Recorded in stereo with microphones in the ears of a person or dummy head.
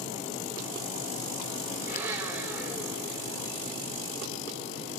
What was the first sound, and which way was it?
A blender, 15° right (ahead or behind).